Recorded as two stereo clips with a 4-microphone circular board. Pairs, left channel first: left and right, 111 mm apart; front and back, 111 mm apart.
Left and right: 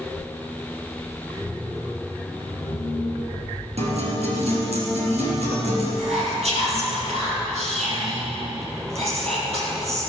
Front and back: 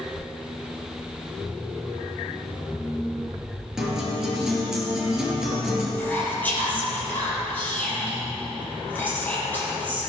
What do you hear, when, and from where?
3.8 s a guitar: 95° right, 4 m
6.0 s whispering: 75° right, 5 m